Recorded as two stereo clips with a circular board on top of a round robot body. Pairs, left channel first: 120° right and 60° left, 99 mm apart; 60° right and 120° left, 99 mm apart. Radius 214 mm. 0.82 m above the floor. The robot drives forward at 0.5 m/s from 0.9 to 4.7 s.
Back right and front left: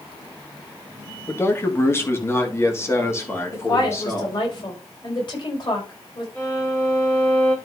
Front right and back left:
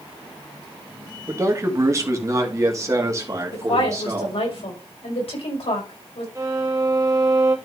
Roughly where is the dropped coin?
No dropped coin in this recording.